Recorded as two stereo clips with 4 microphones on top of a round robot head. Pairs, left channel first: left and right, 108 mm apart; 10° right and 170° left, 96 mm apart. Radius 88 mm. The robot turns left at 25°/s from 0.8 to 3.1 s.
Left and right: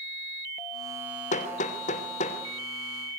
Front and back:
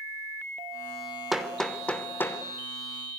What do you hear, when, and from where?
1.3 s hammering: 85° left, 2.5 m; by 2.4 s 60° left, 2.5 m